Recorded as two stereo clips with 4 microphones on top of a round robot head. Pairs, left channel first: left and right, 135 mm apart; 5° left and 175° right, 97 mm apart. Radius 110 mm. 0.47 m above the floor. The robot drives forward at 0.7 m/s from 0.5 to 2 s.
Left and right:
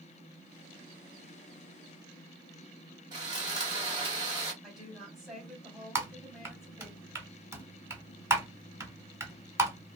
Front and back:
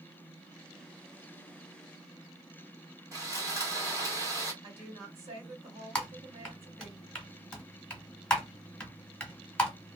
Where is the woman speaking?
175° right, 2.5 m.